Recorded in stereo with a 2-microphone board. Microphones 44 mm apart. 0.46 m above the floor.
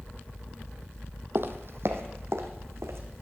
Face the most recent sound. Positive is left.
turn(degrees=-70)  # may be behind; listen again after turning